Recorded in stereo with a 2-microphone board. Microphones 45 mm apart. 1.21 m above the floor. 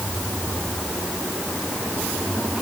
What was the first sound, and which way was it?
Only background noise.